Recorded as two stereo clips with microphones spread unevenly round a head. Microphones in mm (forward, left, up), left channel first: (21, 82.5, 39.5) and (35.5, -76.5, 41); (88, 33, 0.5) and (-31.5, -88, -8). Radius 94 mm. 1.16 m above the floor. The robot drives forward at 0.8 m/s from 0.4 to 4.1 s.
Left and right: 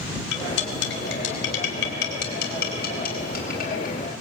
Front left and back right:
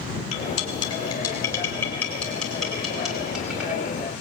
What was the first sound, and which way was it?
Cutlery clinking, 105° left.